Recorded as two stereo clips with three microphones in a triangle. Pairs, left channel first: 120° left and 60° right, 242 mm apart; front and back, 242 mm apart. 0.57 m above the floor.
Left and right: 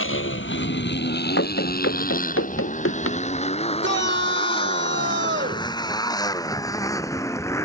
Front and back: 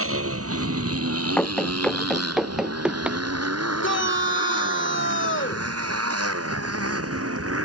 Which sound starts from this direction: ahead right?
A shout, at 3.8 s.